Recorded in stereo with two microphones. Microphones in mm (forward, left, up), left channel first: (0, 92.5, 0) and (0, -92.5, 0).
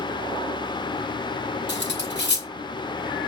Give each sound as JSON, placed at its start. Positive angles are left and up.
{"t": 1.7, "sound": "cutlery clinking", "side_deg": 75, "distance_m": 1.3}